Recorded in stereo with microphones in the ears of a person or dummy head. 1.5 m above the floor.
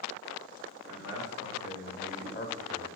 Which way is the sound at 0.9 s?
80° left.